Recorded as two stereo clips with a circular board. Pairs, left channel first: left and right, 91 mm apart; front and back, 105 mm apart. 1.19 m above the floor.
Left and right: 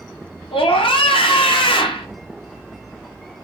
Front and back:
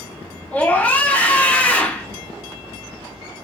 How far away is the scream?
About 0.6 m.